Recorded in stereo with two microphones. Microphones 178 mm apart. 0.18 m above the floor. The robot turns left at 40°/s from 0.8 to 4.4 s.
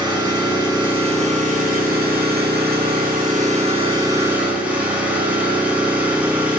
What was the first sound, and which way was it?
An engine running, 25° right.